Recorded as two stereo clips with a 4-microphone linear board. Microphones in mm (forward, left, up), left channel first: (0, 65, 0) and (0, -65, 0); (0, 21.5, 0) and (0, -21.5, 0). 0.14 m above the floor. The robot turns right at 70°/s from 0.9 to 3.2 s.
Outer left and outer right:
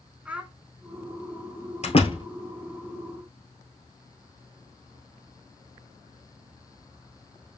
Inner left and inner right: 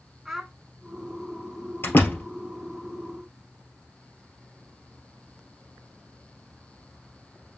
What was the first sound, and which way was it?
A child speaking, 10° right (ahead or behind).